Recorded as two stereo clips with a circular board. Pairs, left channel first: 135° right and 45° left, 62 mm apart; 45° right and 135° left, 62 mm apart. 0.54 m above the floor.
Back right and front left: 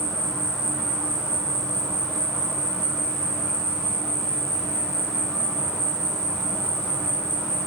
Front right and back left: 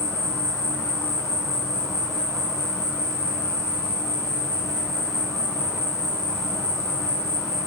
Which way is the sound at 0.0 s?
60° right.